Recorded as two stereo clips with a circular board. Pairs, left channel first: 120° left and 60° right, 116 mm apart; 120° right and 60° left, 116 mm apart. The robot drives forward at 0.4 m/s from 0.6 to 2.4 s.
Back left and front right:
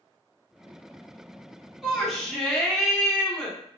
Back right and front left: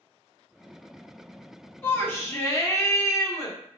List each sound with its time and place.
1.8 s a shout: 135° right, 0.7 m; by 3.6 s 160° right, 0.8 m